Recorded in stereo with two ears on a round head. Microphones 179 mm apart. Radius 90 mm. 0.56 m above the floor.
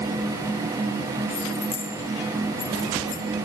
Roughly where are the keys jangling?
Left.